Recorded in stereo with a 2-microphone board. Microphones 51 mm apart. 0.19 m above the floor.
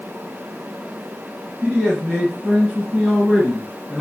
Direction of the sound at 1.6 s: 20° right (ahead or behind).